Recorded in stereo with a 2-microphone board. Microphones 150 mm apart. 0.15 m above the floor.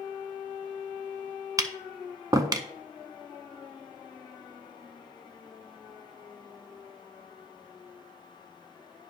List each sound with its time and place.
1.6 s tapping: 25° right (ahead or behind), 0.5 m